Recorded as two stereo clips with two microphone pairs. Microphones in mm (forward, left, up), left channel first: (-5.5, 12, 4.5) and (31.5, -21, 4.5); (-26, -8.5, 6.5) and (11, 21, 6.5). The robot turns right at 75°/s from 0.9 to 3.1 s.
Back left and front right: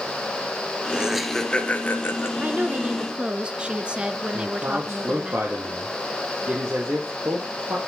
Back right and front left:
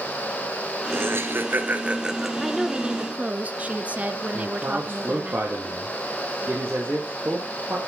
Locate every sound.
0.9 s laughter: 25° left, 1.8 m; by 2.3 s 130° left, 1.8 m
2.4 s a woman speaking: 45° right, 1.2 m; by 5.3 s 5° left, 1.2 m
4.3 s a man speaking: 5° right, 3.5 m